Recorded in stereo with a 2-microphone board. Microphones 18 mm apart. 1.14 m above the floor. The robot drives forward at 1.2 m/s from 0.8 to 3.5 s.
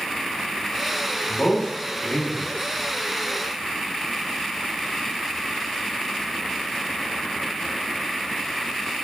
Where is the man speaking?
75° left (ahead or behind), 3.5 m; by 2.5 s 80° left, 3 m.